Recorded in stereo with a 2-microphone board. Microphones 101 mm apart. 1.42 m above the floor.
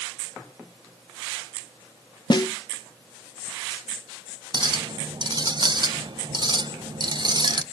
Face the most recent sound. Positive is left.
turn(degrees=-45)  # may be behind; listen again after turning